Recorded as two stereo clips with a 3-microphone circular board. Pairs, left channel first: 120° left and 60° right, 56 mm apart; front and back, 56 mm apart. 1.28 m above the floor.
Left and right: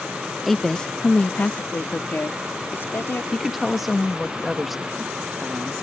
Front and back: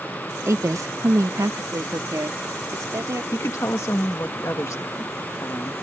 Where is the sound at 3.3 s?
25° left.